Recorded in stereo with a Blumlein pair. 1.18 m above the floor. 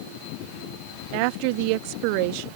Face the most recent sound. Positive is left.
turn(degrees=-45)